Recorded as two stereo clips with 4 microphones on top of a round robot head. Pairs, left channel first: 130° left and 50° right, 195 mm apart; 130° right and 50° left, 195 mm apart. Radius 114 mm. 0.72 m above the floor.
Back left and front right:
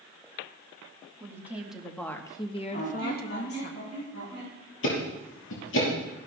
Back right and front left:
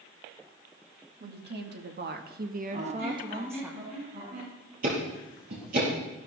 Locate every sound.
1.2 s a woman speaking: 25° left, 1.7 m; by 3.7 s 130° left, 1.4 m
2.7 s a squeak: 100° left, 6.5 m
4.8 s ticking: 100° left, 4.5 m